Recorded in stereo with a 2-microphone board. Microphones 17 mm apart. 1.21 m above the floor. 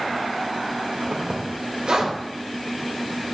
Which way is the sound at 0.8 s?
70° right (ahead or behind).